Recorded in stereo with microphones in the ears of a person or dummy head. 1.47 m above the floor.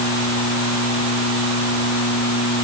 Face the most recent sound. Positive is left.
No sound to turn to.